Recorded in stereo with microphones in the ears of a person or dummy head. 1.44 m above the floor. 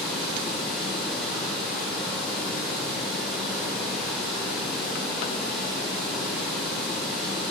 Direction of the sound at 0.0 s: Centre (ahead or behind).